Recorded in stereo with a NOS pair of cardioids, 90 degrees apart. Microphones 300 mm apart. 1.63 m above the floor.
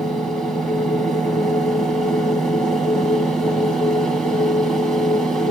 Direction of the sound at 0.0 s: Straight ahead.